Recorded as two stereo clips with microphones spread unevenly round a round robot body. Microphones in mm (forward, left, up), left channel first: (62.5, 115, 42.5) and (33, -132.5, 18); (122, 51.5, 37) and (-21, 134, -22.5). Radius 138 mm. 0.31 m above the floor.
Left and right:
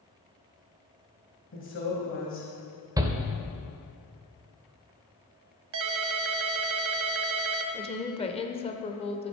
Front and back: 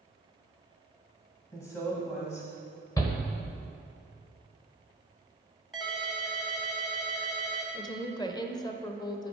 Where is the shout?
125° right, 0.9 m.